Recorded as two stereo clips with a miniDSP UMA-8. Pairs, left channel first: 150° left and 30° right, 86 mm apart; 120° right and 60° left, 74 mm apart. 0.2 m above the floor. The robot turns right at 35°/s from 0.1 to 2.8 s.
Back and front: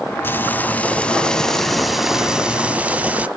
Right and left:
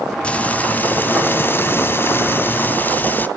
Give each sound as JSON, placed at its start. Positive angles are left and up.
{"t": 0.2, "sound": "frying", "azimuth_deg": 180, "distance_m": 0.7}